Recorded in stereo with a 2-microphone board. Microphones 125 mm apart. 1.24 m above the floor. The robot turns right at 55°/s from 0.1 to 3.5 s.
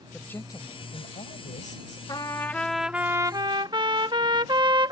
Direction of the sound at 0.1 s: 10° left.